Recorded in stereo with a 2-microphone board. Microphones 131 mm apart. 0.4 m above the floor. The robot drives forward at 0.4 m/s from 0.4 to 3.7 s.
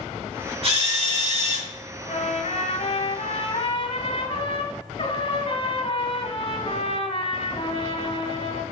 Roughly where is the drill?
Right.